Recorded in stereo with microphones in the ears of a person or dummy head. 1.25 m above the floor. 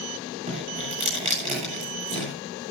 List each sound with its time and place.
0.5 s dripping: 40° right (ahead or behind), 8 m